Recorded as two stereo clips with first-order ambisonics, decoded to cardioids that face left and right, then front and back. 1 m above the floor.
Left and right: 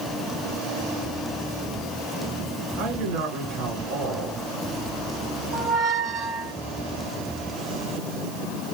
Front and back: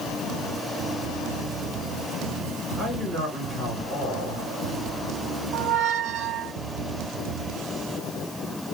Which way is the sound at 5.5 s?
145° right.